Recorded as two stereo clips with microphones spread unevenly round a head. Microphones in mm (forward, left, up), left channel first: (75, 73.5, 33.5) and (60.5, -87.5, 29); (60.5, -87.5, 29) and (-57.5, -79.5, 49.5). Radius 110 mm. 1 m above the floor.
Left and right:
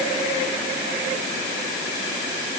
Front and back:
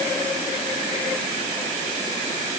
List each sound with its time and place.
Only background noise.